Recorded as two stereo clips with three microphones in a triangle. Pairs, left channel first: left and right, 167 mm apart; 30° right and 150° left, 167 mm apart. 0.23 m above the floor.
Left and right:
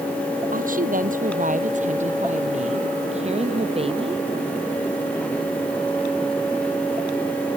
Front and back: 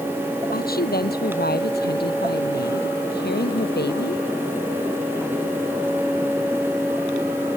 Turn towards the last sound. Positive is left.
turn(degrees=-35)